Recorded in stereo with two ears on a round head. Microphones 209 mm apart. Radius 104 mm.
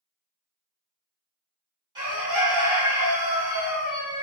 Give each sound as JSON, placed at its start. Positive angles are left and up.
{"t": 1.9, "sound": "a bird", "side_deg": -20, "distance_m": 1.7}